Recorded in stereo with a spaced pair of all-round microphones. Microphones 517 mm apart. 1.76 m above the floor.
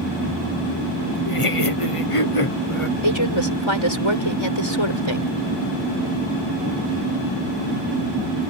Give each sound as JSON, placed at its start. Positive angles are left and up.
{"t": 1.2, "sound": "laughter", "side_deg": 70}
{"t": 3.0, "sound": "a woman speaking", "side_deg": 60}